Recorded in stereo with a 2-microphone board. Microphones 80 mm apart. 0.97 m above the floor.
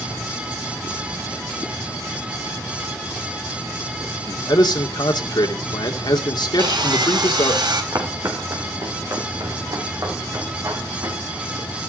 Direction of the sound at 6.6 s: 75° right (ahead or behind).